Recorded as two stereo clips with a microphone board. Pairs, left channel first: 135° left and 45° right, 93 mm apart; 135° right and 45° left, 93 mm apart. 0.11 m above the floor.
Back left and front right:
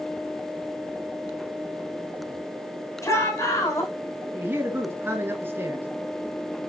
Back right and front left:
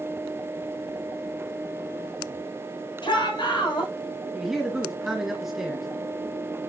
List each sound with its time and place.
3.0 s a shout: 170° right, 6.5 m
4.3 s a man speaking: 35° right, 1.4 m